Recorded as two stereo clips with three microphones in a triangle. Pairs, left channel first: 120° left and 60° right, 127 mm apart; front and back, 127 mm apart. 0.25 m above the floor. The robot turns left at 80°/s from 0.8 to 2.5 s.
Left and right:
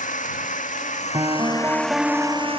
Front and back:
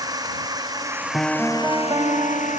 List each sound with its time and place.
0.0 s a drone: 120° left; by 2.6 s 15° right
1.1 s a piano: 80° right; by 2.6 s 175° left